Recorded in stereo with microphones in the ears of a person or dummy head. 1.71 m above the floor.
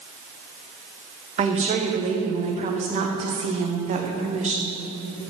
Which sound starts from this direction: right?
A woman speaking, at 1.4 s.